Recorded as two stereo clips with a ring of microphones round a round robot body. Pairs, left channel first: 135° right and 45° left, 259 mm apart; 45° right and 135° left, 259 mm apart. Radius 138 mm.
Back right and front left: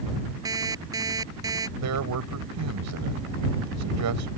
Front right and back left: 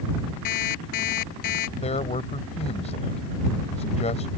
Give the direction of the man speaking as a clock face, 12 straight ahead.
11 o'clock.